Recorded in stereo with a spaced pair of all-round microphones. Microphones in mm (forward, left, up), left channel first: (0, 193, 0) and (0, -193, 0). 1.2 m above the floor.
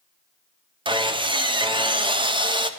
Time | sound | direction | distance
0.8 | sawing | 15° right (ahead or behind) | 0.5 m